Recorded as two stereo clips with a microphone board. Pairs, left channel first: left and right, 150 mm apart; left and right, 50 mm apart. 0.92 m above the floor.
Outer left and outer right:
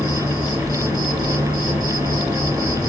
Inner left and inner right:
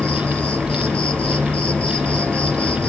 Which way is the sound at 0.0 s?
25° left (ahead or behind).